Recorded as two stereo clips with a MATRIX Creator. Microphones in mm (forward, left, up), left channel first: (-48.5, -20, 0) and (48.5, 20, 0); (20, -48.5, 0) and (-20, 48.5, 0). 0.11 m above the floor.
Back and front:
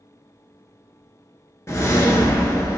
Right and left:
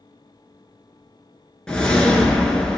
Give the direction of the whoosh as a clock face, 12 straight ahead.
5 o'clock.